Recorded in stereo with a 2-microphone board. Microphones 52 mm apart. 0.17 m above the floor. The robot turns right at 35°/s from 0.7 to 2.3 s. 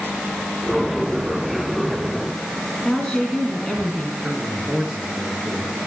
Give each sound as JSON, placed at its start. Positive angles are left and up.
{"t": 2.9, "sound": "a woman speaking", "side_deg": 0, "distance_m": 1.9}
{"t": 4.2, "sound": "a man speaking", "side_deg": -20, "distance_m": 3.0}